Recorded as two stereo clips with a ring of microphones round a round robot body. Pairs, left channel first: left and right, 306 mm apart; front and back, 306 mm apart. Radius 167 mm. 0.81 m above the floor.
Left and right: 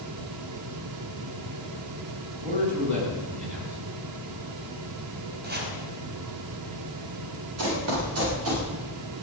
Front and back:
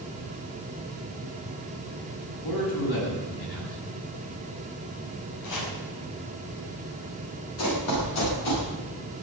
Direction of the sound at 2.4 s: 25° right.